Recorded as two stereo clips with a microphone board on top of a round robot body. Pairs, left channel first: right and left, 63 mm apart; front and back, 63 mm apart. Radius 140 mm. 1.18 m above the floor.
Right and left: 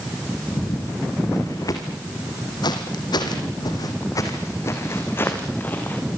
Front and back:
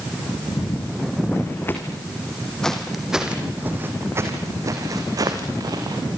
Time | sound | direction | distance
0.5 | footsteps | 40° right | 5 m